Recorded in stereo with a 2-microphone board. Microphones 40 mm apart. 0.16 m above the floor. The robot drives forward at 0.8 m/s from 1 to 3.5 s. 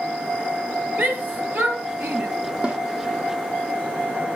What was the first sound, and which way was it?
A shout, 45° right (ahead or behind).